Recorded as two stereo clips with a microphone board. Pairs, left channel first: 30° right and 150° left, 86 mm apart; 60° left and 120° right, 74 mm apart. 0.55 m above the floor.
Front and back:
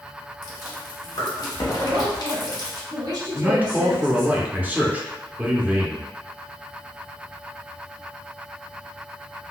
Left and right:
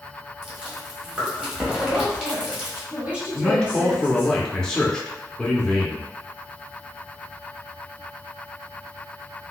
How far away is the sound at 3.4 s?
About 0.7 m.